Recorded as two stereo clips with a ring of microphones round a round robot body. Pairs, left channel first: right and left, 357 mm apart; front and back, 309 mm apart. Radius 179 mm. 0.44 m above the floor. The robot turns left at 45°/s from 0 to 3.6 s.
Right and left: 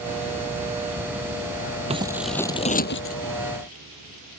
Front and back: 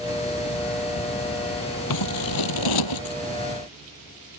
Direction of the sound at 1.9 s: 15° left.